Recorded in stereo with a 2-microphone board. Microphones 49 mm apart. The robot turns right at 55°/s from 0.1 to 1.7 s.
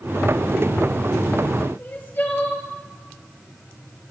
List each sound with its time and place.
1.8 s crying: 40° left (ahead or behind), 1.3 m